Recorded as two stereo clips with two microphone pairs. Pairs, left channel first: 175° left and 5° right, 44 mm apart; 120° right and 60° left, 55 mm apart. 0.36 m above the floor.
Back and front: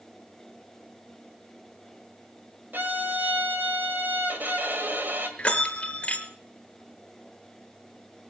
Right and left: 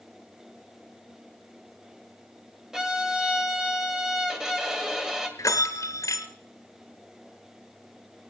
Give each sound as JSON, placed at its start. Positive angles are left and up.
{"t": 2.7, "sound": "a violin", "azimuth_deg": -20, "distance_m": 1.8}
{"t": 5.4, "sound": "a bell", "azimuth_deg": -120, "distance_m": 1.5}